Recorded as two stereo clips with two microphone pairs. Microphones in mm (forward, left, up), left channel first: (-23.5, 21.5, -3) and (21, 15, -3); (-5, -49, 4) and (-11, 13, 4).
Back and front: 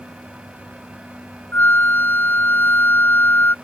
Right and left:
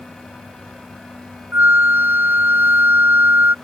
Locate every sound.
1.5 s a flute: 145° left